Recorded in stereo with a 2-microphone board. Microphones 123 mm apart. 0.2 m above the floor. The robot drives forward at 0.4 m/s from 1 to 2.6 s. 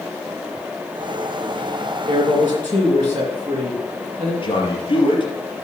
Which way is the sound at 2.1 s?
40° right (ahead or behind).